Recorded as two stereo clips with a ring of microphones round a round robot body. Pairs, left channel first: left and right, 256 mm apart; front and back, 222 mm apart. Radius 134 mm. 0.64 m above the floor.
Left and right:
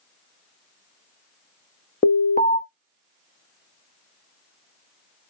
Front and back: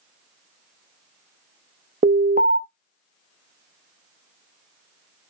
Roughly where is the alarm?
Behind left.